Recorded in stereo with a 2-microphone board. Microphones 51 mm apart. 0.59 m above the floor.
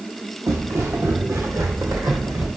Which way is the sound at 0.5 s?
70° right (ahead or behind).